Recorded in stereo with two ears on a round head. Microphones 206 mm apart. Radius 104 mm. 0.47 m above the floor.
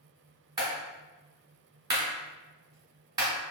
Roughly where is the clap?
Centre.